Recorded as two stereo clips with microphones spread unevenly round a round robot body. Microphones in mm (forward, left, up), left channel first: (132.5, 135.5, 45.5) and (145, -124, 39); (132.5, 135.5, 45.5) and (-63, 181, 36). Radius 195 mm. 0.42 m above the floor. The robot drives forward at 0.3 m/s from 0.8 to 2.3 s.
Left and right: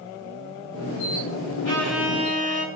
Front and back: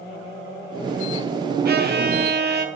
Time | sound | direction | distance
1.6 | a violin | 130° left | 1.7 m